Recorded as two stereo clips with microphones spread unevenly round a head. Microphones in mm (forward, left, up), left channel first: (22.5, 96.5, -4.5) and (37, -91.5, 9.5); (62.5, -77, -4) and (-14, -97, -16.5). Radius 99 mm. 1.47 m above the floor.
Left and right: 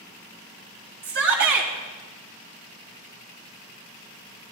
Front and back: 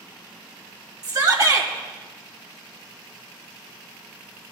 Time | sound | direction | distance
1.0 | a shout | 130° right | 2.5 m